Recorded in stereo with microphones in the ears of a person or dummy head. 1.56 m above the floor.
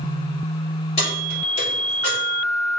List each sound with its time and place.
1.0 s keys jangling: 40° left (ahead or behind), 3 m; by 2.2 s 25° left (ahead or behind), 3.5 m